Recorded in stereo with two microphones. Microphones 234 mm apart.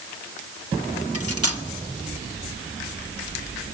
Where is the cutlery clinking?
80° right, 1.3 m.